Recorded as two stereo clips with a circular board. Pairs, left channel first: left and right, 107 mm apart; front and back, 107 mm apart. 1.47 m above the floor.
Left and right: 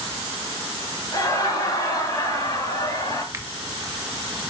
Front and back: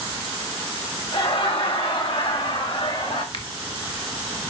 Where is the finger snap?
25° right, 1.4 m.